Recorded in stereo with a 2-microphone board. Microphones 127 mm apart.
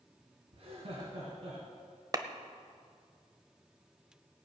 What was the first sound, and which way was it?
Laughter, 60° right (ahead or behind).